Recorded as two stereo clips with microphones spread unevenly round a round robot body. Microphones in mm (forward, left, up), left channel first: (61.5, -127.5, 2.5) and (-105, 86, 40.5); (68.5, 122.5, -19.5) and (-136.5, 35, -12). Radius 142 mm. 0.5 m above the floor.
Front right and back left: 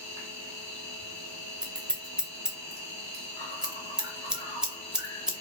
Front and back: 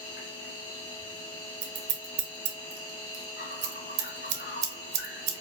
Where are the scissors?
145° right, 0.7 m.